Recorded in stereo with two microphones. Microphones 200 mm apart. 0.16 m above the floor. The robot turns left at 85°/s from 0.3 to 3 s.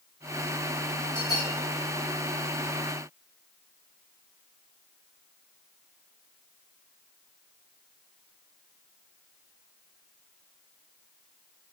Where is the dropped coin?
No dropped coin in this recording.